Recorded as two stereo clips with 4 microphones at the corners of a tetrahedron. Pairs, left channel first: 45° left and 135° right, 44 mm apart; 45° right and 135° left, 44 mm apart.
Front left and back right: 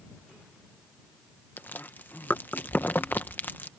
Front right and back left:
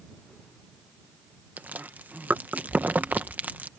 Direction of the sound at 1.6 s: 90° left.